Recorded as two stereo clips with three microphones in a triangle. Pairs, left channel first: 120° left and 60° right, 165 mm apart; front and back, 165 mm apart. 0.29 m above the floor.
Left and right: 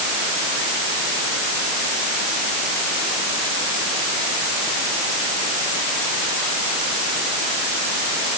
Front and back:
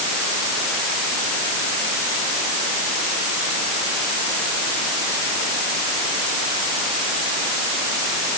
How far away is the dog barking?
I don't hear a dog barking.